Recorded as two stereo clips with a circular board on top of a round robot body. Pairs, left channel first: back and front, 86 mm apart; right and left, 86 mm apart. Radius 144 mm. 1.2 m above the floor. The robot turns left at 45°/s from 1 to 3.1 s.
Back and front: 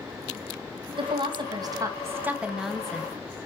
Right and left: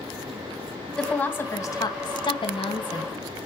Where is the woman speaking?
10° right, 2.5 m; by 3.1 s 105° right, 2.5 m.